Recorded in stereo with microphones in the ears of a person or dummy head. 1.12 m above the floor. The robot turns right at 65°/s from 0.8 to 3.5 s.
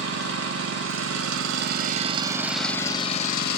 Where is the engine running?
120° right, 0.8 m; by 3.6 s 60° left, 0.8 m.